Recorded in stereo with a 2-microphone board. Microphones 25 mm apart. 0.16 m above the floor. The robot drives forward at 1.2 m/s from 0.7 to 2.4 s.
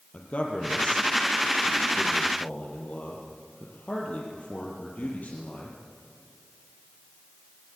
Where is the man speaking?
65° left (ahead or behind), 4.5 m; by 5.8 s 70° left (ahead or behind), 4 m.